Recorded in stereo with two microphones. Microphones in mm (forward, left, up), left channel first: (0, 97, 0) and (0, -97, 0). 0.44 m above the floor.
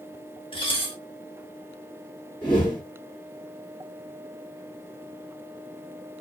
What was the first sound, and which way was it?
Dishes clattering, 25° left (ahead or behind).